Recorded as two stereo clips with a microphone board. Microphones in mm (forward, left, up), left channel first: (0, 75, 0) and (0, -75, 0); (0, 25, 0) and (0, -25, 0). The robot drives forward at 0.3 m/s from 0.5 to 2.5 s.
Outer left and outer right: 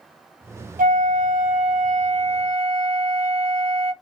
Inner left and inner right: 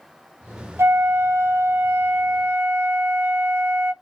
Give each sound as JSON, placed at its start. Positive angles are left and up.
{"t": 0.8, "sound": "a flute", "side_deg": -65, "distance_m": 0.6}